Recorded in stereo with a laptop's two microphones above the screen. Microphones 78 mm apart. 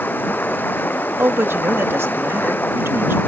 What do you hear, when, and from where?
0.0 s running water: 25° left (ahead or behind)
1.2 s a man speaking: 30° right (ahead or behind)